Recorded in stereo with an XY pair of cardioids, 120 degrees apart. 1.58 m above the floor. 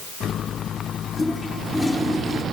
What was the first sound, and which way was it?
A toilet flushing, 20° left.